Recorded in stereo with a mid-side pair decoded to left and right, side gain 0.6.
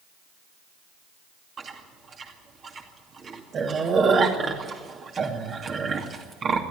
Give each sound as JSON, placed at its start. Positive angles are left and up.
{"t": 1.6, "sound": "chewing", "azimuth_deg": -40, "distance_m": 2.5}